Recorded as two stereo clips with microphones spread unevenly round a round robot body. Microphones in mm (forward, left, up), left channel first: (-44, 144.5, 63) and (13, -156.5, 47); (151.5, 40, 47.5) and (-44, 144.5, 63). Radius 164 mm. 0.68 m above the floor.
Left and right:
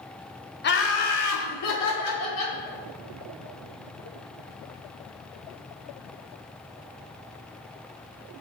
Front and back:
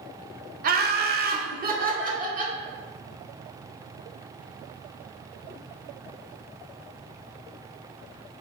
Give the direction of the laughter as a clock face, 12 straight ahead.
7 o'clock.